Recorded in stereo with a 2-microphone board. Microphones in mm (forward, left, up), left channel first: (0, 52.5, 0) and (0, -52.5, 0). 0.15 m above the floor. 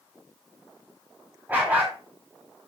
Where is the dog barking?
15° right (ahead or behind), 5 m.